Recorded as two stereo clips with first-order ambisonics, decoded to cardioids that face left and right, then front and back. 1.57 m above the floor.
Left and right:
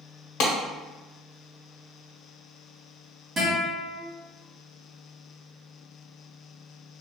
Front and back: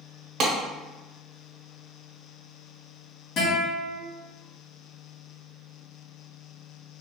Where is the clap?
125° left, 0.9 m.